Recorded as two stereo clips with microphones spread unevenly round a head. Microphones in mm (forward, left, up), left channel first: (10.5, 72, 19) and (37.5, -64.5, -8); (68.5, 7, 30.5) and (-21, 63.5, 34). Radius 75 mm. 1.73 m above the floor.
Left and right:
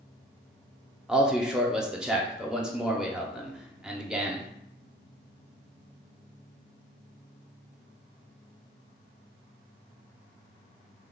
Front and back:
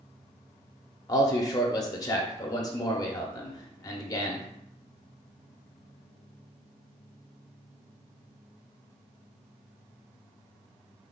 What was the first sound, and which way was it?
A man speaking, 15° left.